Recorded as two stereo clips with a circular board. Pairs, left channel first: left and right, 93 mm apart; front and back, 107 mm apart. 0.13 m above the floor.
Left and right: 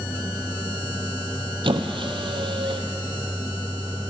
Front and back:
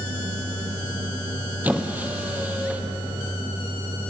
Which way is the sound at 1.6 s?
105° right.